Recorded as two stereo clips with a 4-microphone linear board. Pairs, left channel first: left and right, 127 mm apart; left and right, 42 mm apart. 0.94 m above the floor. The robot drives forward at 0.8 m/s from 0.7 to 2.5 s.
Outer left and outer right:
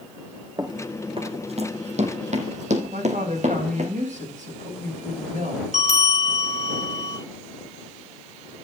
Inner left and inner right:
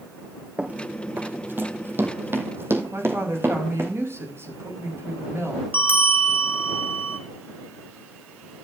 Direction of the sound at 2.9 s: 75° right (ahead or behind).